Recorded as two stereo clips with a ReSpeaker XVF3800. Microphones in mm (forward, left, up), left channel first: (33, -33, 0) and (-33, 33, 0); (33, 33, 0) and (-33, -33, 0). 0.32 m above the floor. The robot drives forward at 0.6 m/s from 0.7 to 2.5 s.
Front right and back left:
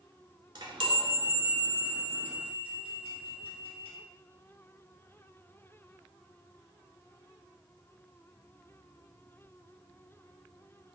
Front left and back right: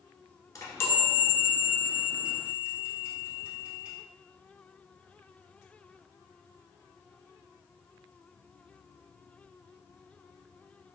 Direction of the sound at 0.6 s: 100° left.